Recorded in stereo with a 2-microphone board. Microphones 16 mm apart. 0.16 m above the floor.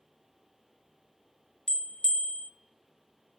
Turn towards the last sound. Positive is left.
turn(degrees=60)  # may be behind; listen again after turning